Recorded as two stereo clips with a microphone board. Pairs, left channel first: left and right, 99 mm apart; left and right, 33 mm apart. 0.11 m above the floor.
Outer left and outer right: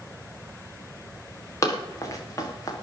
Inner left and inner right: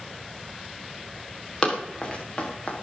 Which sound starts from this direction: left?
Running footsteps, at 1.6 s.